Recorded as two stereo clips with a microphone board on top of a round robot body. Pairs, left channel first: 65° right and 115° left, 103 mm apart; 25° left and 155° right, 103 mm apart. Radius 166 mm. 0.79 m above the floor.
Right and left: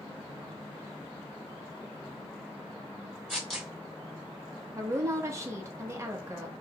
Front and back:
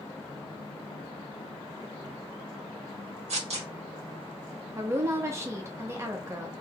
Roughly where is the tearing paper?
Behind right.